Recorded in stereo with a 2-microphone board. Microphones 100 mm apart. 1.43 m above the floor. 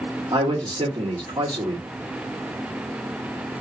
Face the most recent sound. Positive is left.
turn(degrees=-55)  # may be behind; listen again after turning